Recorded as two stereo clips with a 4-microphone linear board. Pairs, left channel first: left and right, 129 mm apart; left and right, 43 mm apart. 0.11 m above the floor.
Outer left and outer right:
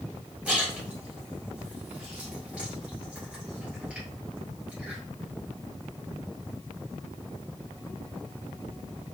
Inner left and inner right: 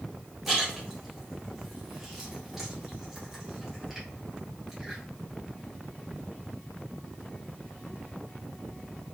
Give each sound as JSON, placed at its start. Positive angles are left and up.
{"t": 0.5, "sound": "a splash", "side_deg": -10, "distance_m": 1.4}